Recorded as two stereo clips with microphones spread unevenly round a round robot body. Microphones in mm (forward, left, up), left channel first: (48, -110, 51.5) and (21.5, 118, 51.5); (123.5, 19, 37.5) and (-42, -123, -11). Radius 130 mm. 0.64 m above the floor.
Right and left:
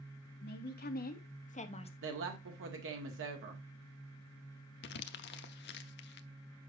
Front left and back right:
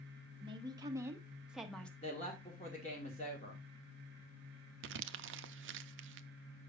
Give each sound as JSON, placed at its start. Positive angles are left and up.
{"t": 0.4, "sound": "a woman speaking", "azimuth_deg": -95, "distance_m": 1.7}
{"t": 2.0, "sound": "a woman speaking", "azimuth_deg": 110, "distance_m": 1.6}
{"t": 4.8, "sound": "crumpling", "azimuth_deg": -125, "distance_m": 0.6}